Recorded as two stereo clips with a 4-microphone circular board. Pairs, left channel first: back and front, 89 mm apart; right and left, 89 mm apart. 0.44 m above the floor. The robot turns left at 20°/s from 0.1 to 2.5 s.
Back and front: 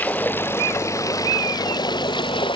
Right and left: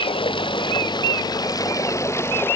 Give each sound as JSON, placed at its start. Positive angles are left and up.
{"t": 0.0, "sound": "running water", "azimuth_deg": -110}